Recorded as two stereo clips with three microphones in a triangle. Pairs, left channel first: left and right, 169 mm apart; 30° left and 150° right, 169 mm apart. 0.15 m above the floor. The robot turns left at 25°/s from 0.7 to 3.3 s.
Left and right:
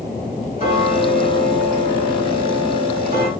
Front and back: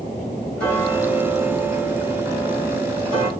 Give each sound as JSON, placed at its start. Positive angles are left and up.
{"t": 0.6, "sound": "ticking", "azimuth_deg": -50, "distance_m": 1.9}